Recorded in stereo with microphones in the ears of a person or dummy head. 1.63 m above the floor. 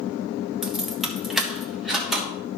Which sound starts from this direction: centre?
Keys jangling, at 0.6 s.